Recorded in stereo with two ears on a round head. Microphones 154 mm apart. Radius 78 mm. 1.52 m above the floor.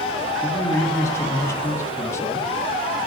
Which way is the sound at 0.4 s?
15° left (ahead or behind).